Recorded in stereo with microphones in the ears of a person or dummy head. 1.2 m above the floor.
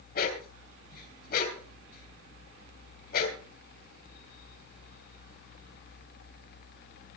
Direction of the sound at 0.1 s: 55° left (ahead or behind).